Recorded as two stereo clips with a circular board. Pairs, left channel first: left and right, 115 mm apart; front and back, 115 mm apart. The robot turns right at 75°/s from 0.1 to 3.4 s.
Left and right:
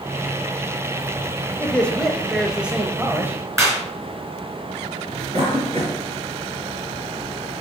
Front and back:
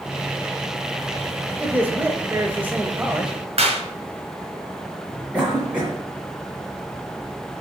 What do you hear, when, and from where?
1.6 s a man speaking: 130° left, 0.9 m; by 3.4 s 95° right, 0.9 m
3.6 s a clap: 155° right, 3.5 m
5.3 s a cough: 100° right, 2 m